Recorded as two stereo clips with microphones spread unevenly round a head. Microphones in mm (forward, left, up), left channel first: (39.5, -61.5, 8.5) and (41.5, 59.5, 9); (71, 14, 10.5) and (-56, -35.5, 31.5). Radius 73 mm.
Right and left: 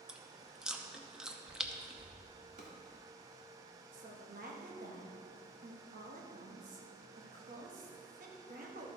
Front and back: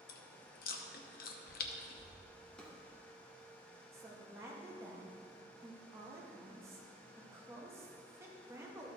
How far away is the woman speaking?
About 1.5 m.